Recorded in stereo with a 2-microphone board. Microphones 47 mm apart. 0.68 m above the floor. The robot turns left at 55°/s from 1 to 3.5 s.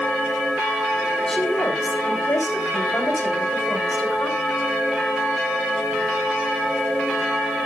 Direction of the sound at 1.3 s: 170° left.